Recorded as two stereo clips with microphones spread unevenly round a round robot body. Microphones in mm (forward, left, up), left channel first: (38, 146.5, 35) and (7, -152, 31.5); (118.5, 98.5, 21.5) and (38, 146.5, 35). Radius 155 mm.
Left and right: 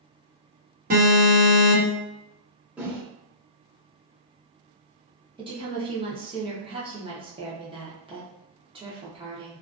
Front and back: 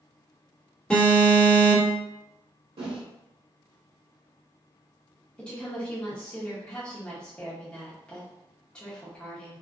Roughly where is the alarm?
Right.